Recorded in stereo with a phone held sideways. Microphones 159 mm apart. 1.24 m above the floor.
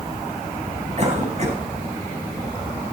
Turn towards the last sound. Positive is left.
turn(degrees=-45)  # may be behind; listen again after turning